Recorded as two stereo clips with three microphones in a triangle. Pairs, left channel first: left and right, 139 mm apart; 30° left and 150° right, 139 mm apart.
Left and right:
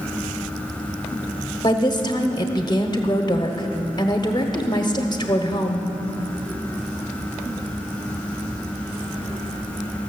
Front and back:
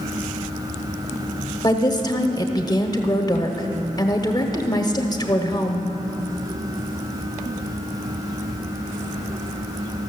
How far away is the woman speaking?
About 0.9 m.